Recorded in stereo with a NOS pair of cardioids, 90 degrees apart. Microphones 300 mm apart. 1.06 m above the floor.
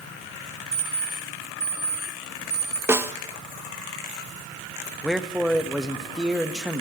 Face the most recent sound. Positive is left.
turn(degrees=0)